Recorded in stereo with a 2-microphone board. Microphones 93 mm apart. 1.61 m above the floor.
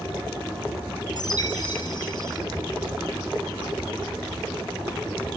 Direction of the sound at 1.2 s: 45° left (ahead or behind).